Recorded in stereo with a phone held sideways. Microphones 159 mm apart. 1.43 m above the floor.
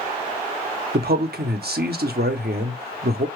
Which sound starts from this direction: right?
A man speaking, at 0.9 s.